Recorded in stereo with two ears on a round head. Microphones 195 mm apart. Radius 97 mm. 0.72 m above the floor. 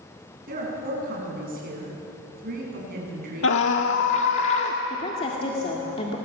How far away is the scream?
About 1.5 m.